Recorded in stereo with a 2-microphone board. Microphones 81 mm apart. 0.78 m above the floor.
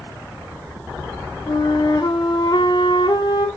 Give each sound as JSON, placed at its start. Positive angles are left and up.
{"t": 1.5, "sound": "a flute", "side_deg": 65, "distance_m": 1.3}